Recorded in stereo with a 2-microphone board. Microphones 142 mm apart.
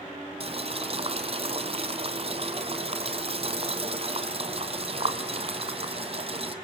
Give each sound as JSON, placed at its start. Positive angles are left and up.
{"t": 0.4, "sound": "boiling", "side_deg": -45, "distance_m": 1.5}